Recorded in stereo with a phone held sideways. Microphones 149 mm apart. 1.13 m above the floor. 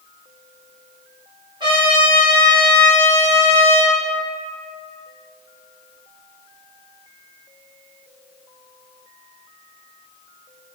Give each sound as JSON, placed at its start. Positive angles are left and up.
{"t": 1.6, "sound": "a trumpet", "side_deg": -35, "distance_m": 1.6}